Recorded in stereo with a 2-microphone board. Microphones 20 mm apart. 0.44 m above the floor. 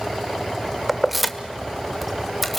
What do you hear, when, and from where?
0.9 s keys jangling: 10° right (ahead or behind), 1.0 m; by 2.6 s centre (ahead or behind), 1.8 m